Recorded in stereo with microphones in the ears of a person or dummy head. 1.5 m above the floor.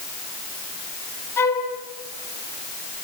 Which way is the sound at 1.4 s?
20° left (ahead or behind).